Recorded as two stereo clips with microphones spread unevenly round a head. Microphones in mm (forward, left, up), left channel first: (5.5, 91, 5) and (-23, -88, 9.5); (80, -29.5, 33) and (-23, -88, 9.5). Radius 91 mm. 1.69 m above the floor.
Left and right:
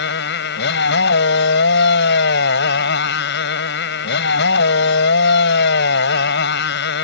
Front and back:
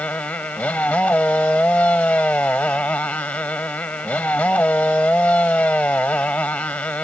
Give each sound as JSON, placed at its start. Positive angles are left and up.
{"t": 0.0, "sound": "a motorcycle", "azimuth_deg": 110}